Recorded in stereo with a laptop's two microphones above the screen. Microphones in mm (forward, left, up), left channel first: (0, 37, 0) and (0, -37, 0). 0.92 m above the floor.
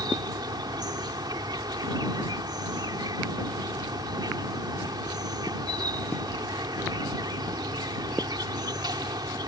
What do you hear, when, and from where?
0.0 s an insect: 65° right (ahead or behind)